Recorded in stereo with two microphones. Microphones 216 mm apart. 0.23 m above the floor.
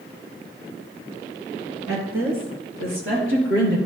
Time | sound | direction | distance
1.9 | a woman speaking | 70° right (ahead or behind) | 3.5 m